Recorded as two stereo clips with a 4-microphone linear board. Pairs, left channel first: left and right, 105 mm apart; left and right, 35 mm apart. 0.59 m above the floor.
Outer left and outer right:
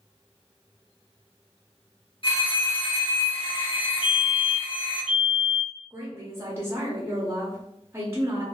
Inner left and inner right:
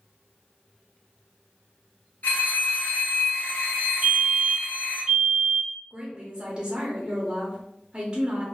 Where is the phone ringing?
50° left (ahead or behind), 0.7 m.